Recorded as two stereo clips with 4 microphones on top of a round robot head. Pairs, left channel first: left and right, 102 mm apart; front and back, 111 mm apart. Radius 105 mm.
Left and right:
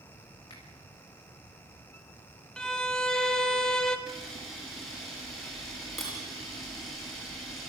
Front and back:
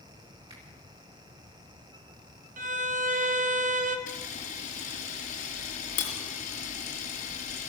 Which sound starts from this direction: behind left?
A finger snap, at 0.5 s.